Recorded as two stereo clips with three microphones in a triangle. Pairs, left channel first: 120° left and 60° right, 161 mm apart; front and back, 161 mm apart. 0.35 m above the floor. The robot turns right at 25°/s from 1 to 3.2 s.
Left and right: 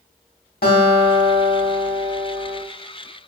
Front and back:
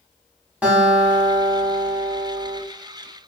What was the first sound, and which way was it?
A guitar, 100° left.